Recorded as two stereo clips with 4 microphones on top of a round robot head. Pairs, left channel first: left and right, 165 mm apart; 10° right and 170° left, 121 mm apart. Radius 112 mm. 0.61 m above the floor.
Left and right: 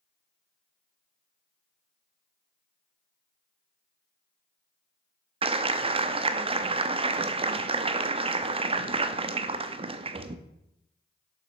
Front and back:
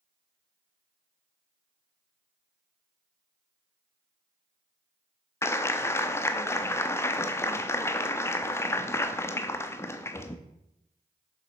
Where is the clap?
65° right, 0.7 m.